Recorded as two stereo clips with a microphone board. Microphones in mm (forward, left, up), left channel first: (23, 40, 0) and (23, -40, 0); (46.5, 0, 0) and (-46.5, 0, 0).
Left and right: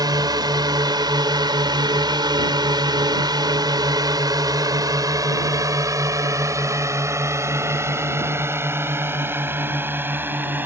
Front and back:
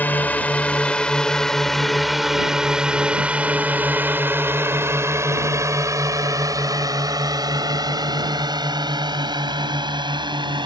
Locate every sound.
0.0 s a drone: 70° right; by 10.7 s 155° right